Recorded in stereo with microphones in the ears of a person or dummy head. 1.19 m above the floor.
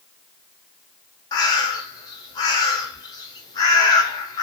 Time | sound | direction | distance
1.3 | a bird | 25° left (ahead or behind) | 0.6 m